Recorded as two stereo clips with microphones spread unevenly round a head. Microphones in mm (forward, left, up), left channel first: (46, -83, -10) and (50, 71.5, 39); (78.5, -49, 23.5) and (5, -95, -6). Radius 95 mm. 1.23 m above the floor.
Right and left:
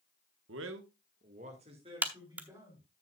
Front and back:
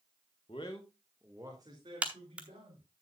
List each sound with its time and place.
0.5 s a man speaking: 95° left, 1.2 m; by 2.8 s 165° left, 4 m
2.0 s a crack: 110° left, 0.8 m